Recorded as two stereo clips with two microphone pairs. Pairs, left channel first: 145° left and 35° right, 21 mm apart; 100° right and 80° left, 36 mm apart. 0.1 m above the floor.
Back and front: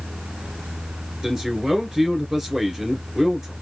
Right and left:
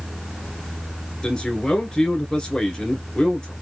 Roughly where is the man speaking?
Right.